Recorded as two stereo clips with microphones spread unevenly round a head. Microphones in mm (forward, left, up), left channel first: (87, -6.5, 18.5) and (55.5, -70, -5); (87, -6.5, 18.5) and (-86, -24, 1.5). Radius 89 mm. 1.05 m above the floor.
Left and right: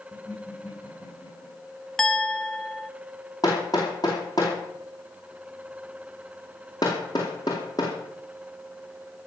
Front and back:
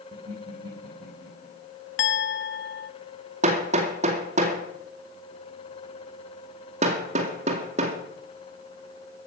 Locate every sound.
0.1 s laughter: 130° left, 5 m
2.0 s a clink: 15° right, 1.0 m
3.4 s hammering: 135° left, 2 m